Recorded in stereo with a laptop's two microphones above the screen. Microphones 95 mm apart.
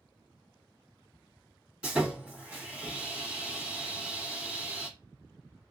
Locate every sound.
1.8 s sawing: 15° right (ahead or behind), 1.4 m